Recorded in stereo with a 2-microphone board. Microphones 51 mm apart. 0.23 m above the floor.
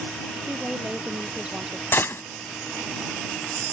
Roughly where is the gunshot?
Left.